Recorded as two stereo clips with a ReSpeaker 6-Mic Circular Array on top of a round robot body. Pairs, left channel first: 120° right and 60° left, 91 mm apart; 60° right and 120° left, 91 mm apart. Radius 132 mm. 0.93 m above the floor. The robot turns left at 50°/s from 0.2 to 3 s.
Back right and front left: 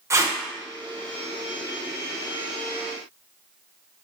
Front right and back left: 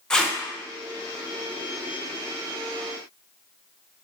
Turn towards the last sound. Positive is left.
turn(degrees=-120)